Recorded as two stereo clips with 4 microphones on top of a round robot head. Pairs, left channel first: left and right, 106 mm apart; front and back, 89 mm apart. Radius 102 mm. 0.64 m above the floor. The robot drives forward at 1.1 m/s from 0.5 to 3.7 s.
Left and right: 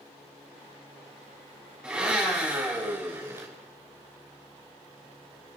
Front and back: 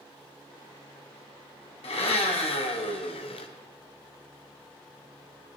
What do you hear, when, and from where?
1.8 s a blender: 10° right, 3 m; by 3.5 s 20° right, 1.2 m